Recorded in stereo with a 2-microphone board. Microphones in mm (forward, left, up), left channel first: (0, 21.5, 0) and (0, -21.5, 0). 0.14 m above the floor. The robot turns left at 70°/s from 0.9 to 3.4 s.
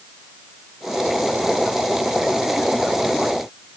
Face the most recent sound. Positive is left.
No sound to turn to.